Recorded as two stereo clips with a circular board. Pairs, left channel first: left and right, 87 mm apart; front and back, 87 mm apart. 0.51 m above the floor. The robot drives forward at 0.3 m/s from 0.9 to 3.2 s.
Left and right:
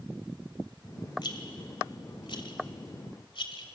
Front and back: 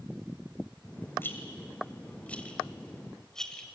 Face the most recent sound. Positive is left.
turn(degrees=80)